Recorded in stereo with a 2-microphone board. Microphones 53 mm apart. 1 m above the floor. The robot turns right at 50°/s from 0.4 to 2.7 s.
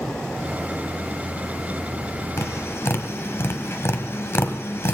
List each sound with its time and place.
2.4 s tapping: 65° left (ahead or behind), 1.6 m; by 5.0 s 55° left (ahead or behind), 1.6 m